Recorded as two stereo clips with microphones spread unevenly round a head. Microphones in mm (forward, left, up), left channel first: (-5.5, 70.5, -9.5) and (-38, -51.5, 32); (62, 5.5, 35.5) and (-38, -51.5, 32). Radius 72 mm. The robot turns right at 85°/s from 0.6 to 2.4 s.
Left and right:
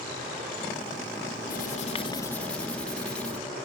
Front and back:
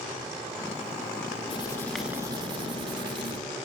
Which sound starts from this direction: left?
Writing, at 1.5 s.